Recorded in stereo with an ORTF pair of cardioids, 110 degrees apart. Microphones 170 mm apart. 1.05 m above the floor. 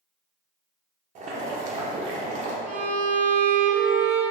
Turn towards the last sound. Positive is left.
turn(degrees=-10)